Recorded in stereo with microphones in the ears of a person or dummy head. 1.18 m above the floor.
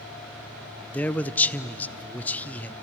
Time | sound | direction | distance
0.9 | a man speaking | 5° left (ahead or behind) | 0.6 m